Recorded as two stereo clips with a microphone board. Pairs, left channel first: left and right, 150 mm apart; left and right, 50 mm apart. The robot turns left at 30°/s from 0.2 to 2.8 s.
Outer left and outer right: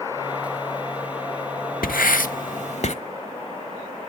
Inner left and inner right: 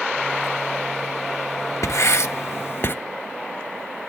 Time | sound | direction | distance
1.8 | writing | 70° left (ahead or behind) | 0.7 m